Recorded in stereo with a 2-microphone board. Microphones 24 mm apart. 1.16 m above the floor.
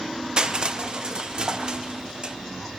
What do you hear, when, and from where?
0.4 s crushing: 35° right (ahead or behind), 0.5 m